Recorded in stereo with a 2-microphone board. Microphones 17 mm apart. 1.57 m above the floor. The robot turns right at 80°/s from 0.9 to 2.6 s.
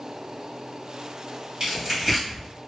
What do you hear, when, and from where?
1.6 s tearing paper: 35° right (ahead or behind), 1.5 m; by 2.5 s 20° left (ahead or behind), 1.5 m